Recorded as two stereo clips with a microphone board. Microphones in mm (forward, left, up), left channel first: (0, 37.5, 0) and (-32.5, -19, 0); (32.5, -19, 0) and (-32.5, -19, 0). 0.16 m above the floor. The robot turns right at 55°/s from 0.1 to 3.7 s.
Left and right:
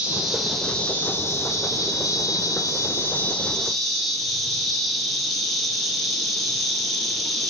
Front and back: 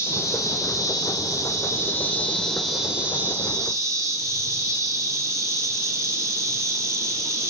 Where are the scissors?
No scissors in this recording.